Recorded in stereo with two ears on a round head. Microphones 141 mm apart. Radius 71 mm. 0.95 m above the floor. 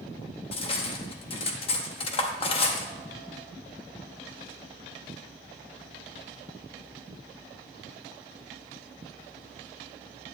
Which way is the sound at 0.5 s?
35° left (ahead or behind).